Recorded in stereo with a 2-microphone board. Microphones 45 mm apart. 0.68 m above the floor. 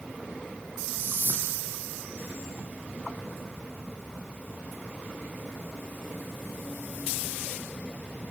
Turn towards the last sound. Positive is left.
turn(degrees=-55)  # may be behind; listen again after turning